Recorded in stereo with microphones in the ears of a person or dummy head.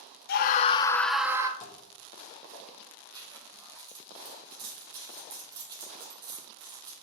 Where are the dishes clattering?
40° left (ahead or behind), 1.2 m.